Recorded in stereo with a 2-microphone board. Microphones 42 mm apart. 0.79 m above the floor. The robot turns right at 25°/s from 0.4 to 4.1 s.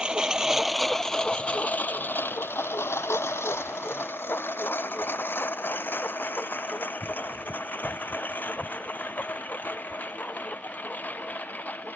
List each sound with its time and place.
0.0 s a lawn mower: 20° right (ahead or behind); by 12.0 s 40° left (ahead or behind)